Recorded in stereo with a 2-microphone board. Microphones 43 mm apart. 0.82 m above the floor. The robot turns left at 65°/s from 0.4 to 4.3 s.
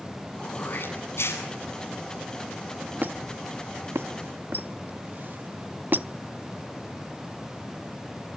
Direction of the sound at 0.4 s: 150° left.